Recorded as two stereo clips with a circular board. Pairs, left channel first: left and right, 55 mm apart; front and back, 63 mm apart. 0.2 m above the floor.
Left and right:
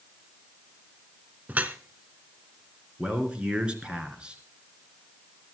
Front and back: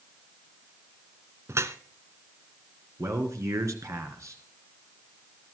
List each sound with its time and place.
1.5 s dripping: 145° right, 1.0 m
3.0 s a man speaking: 160° right, 3 m